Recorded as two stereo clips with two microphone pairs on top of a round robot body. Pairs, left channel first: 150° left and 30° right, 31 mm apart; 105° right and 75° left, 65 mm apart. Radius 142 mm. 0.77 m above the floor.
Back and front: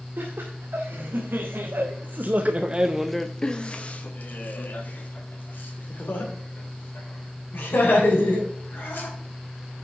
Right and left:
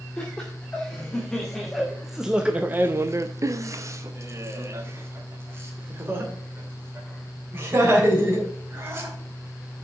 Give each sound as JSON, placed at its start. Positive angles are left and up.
{"t": 0.2, "sound": "laughter", "azimuth_deg": -25, "distance_m": 2.0}